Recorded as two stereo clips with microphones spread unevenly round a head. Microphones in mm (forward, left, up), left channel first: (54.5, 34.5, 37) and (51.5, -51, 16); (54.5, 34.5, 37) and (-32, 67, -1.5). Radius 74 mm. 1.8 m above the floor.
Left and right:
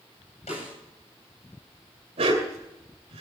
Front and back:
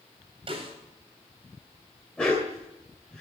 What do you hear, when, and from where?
0.5 s a snare drum: 130° left, 8.5 m
2.2 s a dog barking: 90° right, 2.5 m